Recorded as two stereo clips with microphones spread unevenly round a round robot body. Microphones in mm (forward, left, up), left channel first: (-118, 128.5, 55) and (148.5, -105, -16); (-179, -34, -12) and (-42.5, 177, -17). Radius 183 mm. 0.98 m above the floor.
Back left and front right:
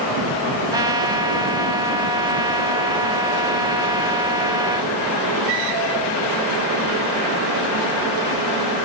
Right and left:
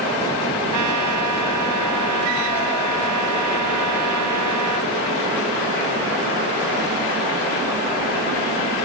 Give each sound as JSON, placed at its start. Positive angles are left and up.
{"t": 0.7, "sound": "a trumpet", "azimuth_deg": 40}